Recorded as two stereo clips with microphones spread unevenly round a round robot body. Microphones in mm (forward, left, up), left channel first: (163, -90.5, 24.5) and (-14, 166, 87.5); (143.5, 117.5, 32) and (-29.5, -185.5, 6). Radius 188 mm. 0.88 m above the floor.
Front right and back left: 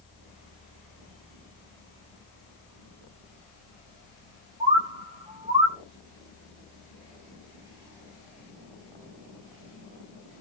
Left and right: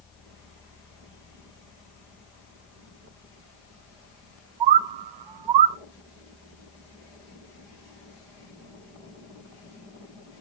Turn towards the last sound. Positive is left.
turn(degrees=-155)